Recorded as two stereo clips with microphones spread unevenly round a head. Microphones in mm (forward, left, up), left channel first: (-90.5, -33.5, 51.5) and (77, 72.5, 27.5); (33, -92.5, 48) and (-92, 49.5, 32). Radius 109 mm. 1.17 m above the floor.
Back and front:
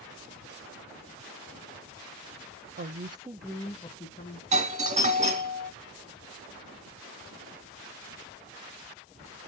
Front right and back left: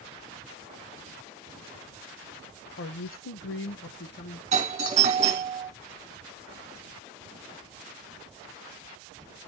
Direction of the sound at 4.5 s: 80° left.